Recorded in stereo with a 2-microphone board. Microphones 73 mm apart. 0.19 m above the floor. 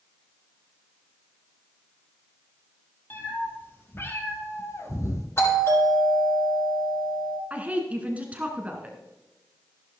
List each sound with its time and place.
3.1 s a cat meowing: 30° left (ahead or behind), 3 m; by 5.3 s 45° left (ahead or behind), 1.8 m
5.4 s a doorbell: 40° left (ahead or behind), 6 m
7.5 s a woman speaking: 20° right (ahead or behind), 1.8 m